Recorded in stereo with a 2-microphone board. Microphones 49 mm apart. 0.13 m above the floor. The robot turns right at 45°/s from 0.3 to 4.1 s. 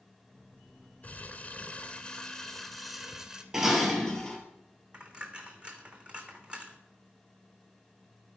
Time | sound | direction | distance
1.0 | crumpling | 95° left | 0.8 m
3.5 | dishes clattering | 10° right (ahead or behind) | 1.8 m
4.9 | a dropped coin | 20° right (ahead or behind) | 1.1 m